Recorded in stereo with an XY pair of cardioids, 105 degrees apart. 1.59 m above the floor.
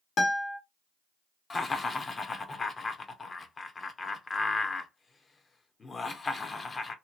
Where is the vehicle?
No vehicle in this recording.